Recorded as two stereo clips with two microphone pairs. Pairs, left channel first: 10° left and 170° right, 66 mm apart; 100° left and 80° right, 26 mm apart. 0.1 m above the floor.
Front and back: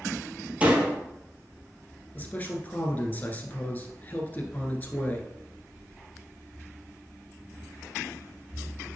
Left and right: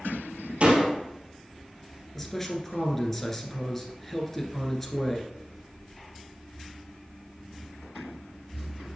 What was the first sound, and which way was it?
A door slam, 105° right.